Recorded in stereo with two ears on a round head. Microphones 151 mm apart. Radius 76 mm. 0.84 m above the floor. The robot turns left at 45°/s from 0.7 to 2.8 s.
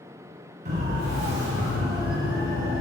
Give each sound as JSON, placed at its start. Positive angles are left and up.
{"t": 0.7, "sound": "a siren", "side_deg": -45, "distance_m": 6.5}